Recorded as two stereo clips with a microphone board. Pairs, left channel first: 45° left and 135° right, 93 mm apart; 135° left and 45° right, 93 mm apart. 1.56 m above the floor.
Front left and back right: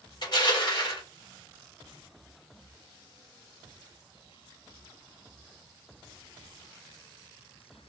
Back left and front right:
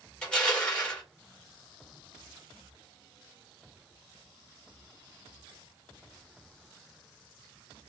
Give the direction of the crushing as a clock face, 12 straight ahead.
10 o'clock.